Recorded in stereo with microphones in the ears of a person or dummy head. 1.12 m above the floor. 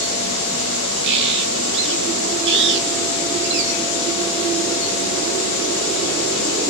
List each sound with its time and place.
1.0 s a bird: 65° right (ahead or behind), 0.9 m